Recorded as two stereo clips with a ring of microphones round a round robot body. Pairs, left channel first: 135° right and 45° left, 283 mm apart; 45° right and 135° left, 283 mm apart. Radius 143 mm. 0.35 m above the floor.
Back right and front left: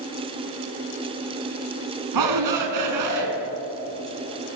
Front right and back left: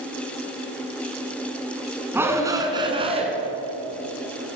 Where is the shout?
50° left, 4 m; by 3.3 s 65° left, 4 m.